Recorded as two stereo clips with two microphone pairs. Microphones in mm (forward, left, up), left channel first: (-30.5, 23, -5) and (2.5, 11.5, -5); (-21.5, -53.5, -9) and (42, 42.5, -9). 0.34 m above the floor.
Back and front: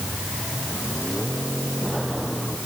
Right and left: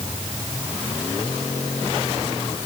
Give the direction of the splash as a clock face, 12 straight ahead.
No splash in this recording.